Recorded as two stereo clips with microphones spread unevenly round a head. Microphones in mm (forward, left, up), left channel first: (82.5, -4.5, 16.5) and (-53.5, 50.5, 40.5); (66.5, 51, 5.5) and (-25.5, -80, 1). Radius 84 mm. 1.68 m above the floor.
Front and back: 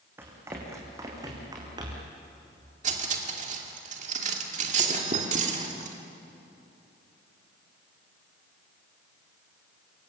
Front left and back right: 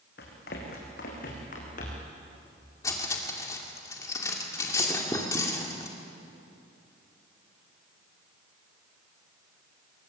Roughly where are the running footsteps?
Left.